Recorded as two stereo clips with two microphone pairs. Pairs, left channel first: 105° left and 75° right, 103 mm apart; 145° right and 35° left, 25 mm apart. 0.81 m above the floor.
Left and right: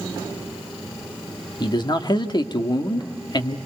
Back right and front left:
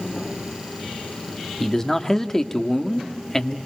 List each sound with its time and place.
1.6 s a man speaking: 145° left, 1.4 m